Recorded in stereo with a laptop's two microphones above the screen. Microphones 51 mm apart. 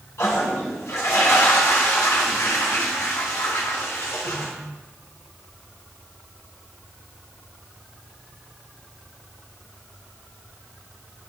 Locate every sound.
0.2 s a toilet flushing: 70° left (ahead or behind), 1.7 m